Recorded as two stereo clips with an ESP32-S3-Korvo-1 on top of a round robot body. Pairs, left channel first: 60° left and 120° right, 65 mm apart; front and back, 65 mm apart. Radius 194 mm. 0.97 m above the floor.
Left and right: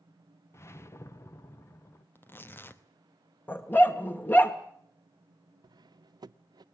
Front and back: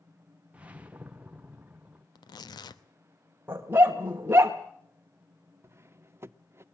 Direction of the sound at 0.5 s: 110° left.